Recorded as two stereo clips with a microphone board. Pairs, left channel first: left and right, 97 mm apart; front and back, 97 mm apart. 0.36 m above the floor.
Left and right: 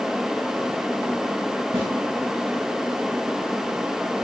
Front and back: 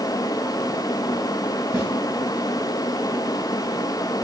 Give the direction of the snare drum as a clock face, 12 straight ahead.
4 o'clock.